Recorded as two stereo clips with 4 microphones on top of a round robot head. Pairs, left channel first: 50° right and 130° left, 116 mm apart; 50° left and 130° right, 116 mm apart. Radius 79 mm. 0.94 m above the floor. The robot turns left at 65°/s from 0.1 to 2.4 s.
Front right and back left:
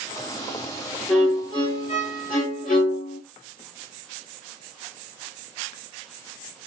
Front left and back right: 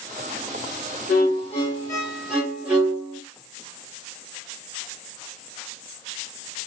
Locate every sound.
1.1 s a violin: 35° left, 1.9 m; by 3.2 s 50° right, 1.9 m